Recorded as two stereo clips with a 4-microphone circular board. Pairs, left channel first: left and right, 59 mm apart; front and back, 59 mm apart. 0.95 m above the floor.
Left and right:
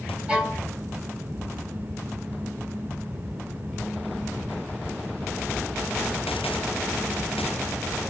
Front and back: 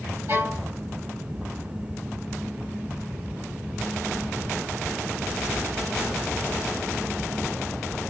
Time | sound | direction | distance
0.3 | a violin | 160° right | 2.0 m